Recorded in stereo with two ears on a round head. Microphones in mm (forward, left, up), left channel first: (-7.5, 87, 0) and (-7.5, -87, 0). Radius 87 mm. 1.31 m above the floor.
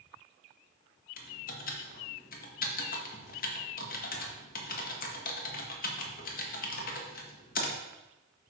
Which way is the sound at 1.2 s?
45° left (ahead or behind).